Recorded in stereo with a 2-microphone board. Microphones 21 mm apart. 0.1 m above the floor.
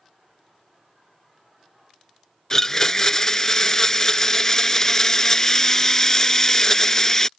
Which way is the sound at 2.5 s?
25° left (ahead or behind).